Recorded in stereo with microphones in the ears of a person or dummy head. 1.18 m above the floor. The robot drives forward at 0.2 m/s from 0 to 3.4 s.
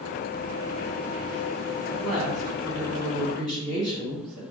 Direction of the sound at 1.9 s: 5° left (ahead or behind).